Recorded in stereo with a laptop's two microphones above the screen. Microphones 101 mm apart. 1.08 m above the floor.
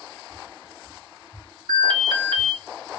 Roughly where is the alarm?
Right.